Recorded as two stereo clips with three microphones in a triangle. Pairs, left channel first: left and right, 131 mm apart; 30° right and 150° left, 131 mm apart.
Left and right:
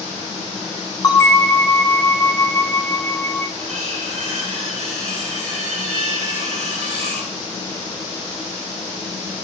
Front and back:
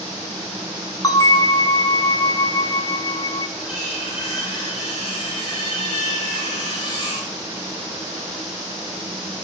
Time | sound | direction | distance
1.0 | a bell | 25° left | 0.6 m
3.6 | cutlery clinking | 55° right | 3.5 m